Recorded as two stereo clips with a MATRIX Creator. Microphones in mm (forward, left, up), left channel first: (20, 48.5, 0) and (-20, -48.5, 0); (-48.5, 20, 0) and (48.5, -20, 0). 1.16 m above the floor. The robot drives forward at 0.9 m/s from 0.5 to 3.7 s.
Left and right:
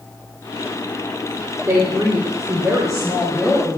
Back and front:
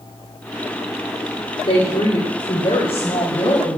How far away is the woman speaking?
About 3 m.